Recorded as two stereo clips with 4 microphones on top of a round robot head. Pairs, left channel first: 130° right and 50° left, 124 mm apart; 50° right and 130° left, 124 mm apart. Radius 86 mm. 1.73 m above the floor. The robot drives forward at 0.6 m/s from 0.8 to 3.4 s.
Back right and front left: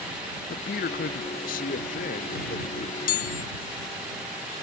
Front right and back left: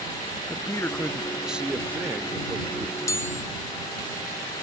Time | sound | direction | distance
0.5 | a man speaking | 120° right | ?
3.1 | a chime | 115° right | ?